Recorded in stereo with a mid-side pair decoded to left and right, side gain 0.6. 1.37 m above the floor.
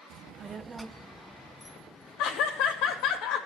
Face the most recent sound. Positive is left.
turn(degrees=65)